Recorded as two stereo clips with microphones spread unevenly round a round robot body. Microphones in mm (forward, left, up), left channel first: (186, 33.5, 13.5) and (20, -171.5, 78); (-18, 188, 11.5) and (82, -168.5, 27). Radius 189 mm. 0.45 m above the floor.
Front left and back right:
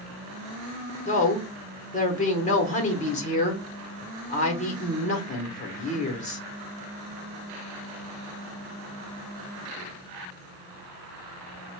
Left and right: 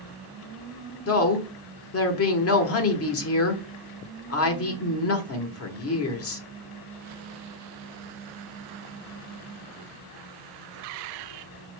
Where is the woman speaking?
75° left, 1.0 m.